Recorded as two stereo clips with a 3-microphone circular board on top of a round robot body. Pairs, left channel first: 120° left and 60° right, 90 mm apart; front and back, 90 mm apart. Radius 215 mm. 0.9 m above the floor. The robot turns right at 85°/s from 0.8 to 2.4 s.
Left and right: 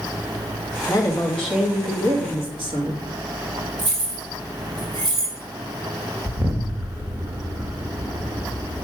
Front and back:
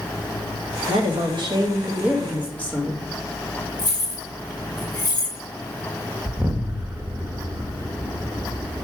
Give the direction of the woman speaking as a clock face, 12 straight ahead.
7 o'clock.